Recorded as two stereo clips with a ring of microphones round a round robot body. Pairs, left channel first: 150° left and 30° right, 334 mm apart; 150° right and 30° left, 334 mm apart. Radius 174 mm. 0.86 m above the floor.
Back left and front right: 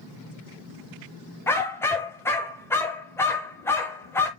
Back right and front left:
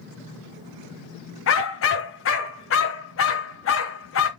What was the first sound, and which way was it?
A dog barking, 130° right.